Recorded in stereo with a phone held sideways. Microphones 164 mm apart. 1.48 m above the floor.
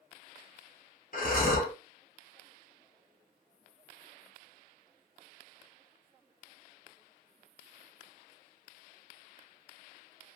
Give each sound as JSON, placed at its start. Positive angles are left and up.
{"t": 1.1, "sound": "breathing", "side_deg": 55, "distance_m": 1.3}